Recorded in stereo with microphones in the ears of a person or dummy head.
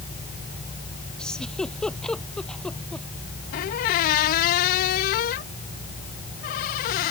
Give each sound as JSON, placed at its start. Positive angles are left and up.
{"t": 1.2, "sound": "a giggle", "side_deg": 0}
{"t": 3.5, "sound": "a squeak", "side_deg": 40}